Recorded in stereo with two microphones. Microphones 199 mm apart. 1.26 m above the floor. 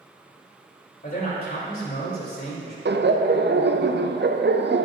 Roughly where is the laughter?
Right.